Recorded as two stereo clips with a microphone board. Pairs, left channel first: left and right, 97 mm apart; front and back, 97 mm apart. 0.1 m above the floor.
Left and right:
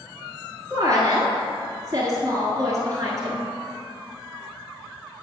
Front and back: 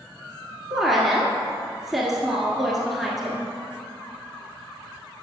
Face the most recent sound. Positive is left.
turn(degrees=-90)